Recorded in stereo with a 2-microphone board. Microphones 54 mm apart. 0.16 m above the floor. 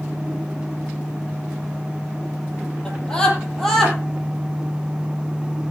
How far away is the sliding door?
I don't hear a sliding door.